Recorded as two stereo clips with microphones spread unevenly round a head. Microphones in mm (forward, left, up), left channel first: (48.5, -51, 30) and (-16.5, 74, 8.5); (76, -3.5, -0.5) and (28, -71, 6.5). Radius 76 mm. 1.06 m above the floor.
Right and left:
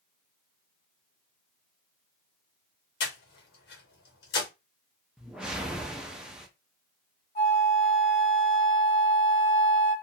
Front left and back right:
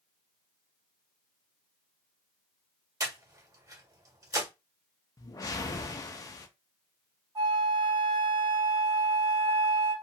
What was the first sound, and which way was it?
Breathing, 80° right.